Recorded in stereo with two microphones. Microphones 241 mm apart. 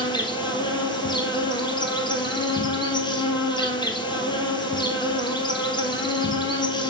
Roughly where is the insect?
Centre.